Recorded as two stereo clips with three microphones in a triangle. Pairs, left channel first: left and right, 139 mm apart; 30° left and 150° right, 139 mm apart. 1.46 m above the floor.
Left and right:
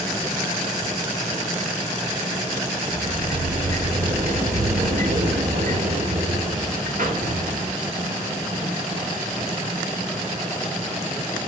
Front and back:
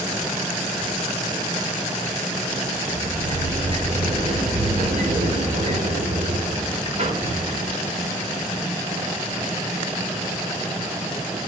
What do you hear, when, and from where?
2.9 s a sliding door: 110° right, 4 m